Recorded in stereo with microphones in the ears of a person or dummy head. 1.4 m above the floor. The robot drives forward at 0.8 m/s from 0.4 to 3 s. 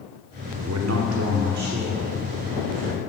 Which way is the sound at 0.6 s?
80° right.